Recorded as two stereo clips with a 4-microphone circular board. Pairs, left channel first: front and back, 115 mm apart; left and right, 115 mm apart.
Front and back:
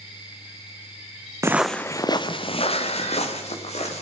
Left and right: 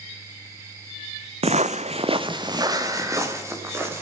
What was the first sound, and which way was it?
Footsteps, 115° right.